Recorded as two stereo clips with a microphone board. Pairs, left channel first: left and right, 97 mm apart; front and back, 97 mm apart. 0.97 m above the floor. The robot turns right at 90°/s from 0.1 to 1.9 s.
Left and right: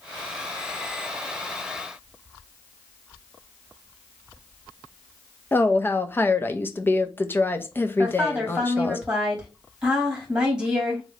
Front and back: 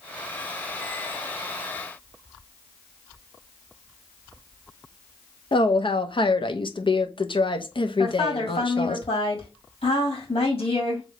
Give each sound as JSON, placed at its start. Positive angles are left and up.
{"t": 5.5, "sound": "a woman speaking", "azimuth_deg": 25, "distance_m": 0.8}
{"t": 8.0, "sound": "a woman speaking", "azimuth_deg": -10, "distance_m": 3.0}